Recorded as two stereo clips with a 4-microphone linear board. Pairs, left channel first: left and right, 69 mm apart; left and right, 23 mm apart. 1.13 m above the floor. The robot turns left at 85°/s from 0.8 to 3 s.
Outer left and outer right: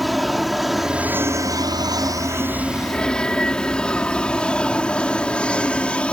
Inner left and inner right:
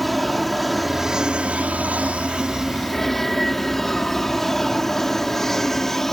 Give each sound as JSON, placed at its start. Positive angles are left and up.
{"t": 0.0, "sound": "an aircraft", "side_deg": 0}